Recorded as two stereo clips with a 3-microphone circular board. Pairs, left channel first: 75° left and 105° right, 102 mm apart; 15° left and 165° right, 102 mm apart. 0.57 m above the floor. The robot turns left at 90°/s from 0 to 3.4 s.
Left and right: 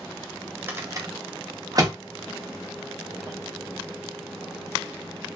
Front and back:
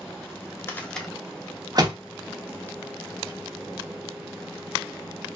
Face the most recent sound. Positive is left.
turn(degrees=75)